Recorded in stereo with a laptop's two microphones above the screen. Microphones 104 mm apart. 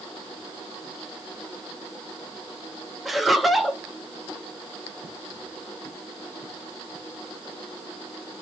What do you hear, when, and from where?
3.0 s laughter: centre (ahead or behind), 0.7 m